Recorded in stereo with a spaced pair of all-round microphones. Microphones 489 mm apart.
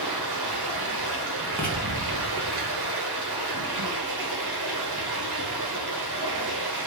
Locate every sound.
0.0 s running water: 50° right (ahead or behind), 0.9 m
1.6 s writing: 5° left (ahead or behind), 1.1 m